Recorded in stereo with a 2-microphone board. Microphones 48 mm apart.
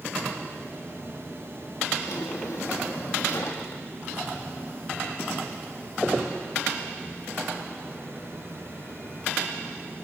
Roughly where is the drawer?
Left.